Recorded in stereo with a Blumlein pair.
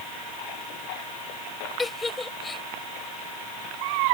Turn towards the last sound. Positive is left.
turn(degrees=10)